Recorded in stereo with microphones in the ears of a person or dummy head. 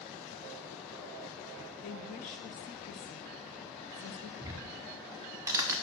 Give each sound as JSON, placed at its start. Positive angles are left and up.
{"t": 1.8, "sound": "a woman speaking", "side_deg": 35, "distance_m": 0.6}
{"t": 4.4, "sound": "ticking", "side_deg": -15, "distance_m": 0.8}